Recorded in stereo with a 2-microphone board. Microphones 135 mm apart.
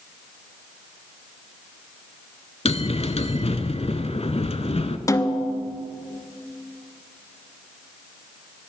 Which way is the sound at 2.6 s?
50° left (ahead or behind).